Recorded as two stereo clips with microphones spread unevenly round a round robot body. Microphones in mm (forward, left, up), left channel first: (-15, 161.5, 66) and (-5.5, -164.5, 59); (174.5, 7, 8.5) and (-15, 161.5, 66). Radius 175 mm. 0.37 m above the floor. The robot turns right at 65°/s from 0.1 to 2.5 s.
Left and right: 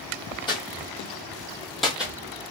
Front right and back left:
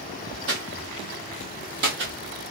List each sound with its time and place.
0.5 s footsteps: 165° left, 0.7 m; by 2.1 s 170° right, 0.7 m